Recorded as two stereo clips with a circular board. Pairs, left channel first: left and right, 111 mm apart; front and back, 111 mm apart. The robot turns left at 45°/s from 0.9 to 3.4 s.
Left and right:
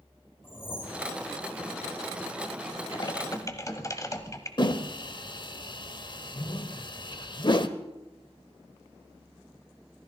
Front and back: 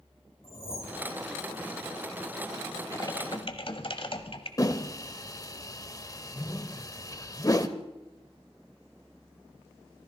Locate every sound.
0.4 s a whoosh: 20° left, 2.5 m; by 1.1 s 10° left, 2.5 m
2.9 s typing on a keyboard: 55° left, 1.2 m; by 4.5 s 30° left, 1.2 m
4.6 s a whoosh: 50° left, 0.8 m